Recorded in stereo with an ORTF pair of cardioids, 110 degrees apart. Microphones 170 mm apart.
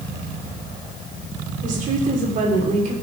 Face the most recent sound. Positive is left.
turn(degrees=-50)